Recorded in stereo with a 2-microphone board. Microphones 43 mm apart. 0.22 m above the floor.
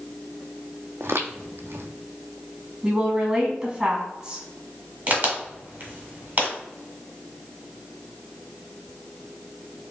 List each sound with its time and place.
1.0 s footsteps: 70° right (ahead or behind), 0.5 m
2.8 s a woman speaking: 20° right (ahead or behind), 1.6 m
5.1 s a crack: 40° right (ahead or behind), 1.3 m